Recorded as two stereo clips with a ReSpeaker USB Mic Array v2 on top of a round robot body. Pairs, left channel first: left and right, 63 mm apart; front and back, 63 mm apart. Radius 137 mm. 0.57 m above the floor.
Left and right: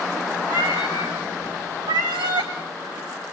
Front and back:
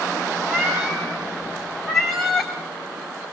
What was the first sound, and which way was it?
A cat meowing, 100° right.